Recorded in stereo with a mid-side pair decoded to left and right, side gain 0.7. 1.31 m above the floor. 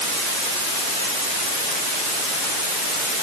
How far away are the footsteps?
No footsteps in this recording.